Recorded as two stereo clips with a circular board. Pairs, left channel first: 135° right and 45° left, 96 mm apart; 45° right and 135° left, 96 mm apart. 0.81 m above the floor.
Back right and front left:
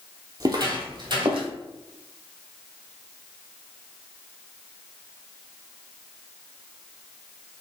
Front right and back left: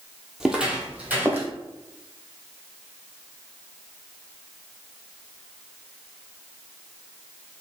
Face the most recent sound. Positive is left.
turn(degrees=70)